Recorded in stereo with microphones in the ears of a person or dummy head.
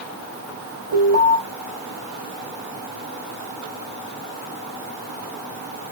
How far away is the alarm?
About 7 m.